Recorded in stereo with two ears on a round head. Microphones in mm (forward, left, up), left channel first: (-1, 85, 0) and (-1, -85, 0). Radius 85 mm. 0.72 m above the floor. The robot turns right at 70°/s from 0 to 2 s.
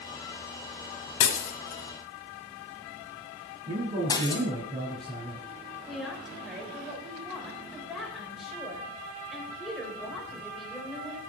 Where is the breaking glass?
70° left (ahead or behind), 1.5 m; by 4.4 s 20° left (ahead or behind), 1.5 m.